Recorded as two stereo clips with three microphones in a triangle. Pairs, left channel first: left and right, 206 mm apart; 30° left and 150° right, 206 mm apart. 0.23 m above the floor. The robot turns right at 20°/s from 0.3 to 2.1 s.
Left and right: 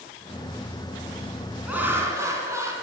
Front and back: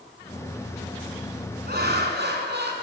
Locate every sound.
1.7 s laughter: 175° right, 2 m; by 2.7 s 165° right, 2 m